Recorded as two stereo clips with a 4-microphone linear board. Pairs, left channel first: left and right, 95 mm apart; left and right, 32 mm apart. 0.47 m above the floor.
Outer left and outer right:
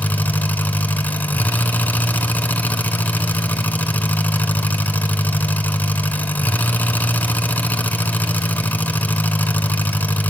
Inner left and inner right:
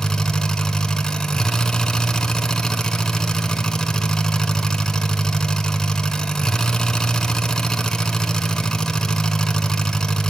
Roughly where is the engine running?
Centre.